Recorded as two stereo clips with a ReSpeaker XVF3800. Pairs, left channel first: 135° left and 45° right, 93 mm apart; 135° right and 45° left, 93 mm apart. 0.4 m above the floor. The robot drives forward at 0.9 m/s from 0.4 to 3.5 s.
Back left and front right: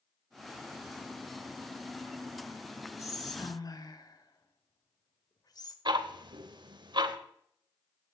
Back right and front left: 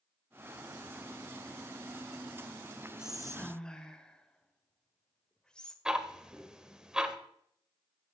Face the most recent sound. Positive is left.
turn(degrees=-35)